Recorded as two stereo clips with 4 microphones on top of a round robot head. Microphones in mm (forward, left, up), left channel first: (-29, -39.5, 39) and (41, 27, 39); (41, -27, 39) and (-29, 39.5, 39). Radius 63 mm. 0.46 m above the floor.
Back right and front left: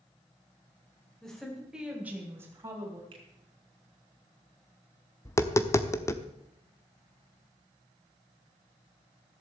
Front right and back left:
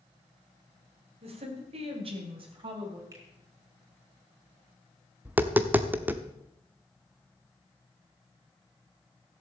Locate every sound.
1.2 s a woman speaking: 140° left, 3.5 m; by 3.0 s 100° left, 4 m
3.1 s a finger snap: 80° left, 4 m
5.2 s tapping: 170° right, 1.1 m